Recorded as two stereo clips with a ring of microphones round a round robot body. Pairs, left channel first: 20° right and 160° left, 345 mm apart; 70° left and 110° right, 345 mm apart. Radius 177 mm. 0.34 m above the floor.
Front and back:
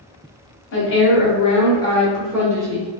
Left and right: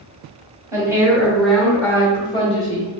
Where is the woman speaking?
40° right, 1.3 m; by 2.9 s 105° left, 1.1 m.